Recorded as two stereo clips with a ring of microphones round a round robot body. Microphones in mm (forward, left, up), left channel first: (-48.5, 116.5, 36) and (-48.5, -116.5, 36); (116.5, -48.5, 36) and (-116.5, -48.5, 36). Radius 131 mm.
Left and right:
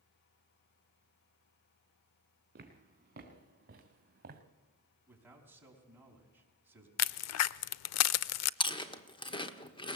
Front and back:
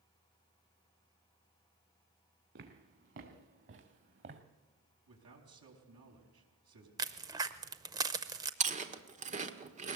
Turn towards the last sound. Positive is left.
turn(degrees=145)